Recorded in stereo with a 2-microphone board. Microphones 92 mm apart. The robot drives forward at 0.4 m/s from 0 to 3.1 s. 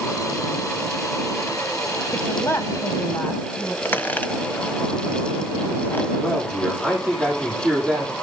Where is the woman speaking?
30° left (ahead or behind), 1.3 m; by 3.8 s 25° left (ahead or behind), 1.5 m.